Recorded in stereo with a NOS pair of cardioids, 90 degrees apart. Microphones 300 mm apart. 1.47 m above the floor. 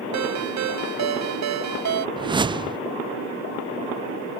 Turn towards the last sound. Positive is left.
turn(degrees=-15)